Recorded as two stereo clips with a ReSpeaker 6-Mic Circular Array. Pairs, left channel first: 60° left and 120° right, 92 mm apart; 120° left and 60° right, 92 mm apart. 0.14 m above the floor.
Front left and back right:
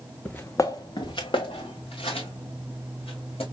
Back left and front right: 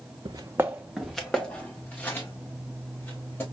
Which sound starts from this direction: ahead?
Footsteps, at 0.2 s.